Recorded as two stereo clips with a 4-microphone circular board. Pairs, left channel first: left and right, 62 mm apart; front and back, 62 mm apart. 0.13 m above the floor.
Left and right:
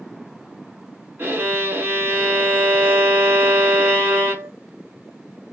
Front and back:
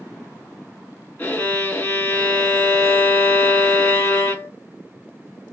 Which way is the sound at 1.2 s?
50° right.